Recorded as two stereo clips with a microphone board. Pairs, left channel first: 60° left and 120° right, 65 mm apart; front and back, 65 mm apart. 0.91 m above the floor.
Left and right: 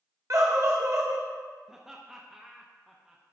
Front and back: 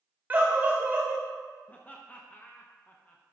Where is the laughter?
40° right, 0.7 m.